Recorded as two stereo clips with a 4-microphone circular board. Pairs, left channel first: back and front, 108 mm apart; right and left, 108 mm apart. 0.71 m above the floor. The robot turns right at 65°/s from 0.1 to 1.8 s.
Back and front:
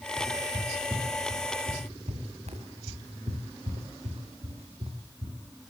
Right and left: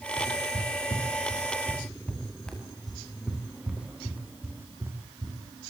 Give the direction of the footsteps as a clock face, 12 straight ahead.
4 o'clock.